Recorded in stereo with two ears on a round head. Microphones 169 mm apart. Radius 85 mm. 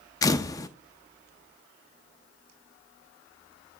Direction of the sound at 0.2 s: 20° left (ahead or behind).